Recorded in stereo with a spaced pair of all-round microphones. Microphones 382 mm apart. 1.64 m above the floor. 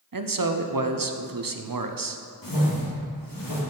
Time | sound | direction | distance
0.1 | a man speaking | 60° right (ahead or behind) | 0.6 m
2.4 | a whoosh | 60° left (ahead or behind) | 1.7 m